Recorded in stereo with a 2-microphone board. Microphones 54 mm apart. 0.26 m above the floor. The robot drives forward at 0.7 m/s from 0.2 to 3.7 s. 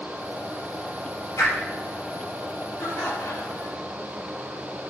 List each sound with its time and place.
1.4 s a whoosh: 65° left (ahead or behind), 4.5 m
2.8 s laughter: 65° left (ahead or behind), 3 m; by 3.8 s 60° left (ahead or behind), 3 m